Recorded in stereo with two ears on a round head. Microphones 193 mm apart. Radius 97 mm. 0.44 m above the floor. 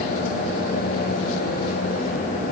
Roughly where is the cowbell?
No cowbell in this recording.